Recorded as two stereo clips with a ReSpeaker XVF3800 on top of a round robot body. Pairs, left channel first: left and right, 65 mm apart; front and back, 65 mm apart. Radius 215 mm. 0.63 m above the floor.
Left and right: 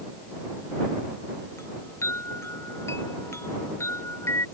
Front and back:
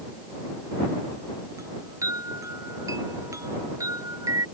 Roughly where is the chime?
Behind left.